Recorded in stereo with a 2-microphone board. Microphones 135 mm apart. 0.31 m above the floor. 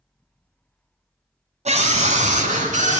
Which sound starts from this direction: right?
A scream, at 1.6 s.